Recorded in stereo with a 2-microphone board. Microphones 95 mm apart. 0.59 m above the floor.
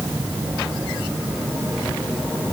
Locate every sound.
Only background noise.